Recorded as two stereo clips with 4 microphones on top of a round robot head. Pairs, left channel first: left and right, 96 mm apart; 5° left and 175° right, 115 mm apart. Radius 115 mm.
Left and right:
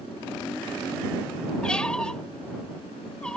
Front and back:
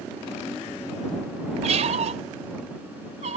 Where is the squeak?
175° left.